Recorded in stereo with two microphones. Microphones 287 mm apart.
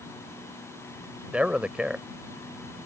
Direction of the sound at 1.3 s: 5° right (ahead or behind).